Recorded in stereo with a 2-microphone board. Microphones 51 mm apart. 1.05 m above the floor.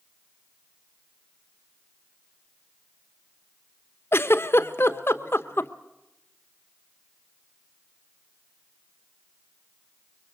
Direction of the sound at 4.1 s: 50° left (ahead or behind).